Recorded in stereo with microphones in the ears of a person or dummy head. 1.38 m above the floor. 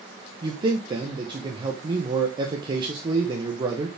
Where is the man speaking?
30° right (ahead or behind), 1.2 m.